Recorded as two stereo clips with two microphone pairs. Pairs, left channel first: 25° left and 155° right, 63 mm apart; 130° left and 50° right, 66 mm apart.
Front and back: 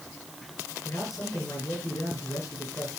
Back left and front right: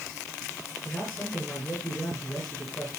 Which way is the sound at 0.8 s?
65° left.